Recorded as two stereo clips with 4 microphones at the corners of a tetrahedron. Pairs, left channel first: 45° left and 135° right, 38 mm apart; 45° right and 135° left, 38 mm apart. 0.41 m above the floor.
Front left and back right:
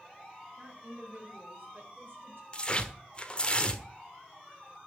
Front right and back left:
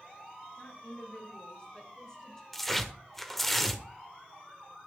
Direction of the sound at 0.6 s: 80° right.